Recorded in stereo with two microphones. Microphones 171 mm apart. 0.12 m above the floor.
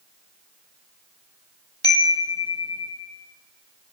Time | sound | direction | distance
1.8 | a chime | 75° left (ahead or behind) | 0.8 m